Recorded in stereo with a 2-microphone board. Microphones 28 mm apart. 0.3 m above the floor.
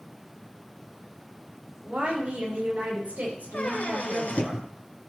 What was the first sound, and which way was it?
A woman speaking, 60° right (ahead or behind).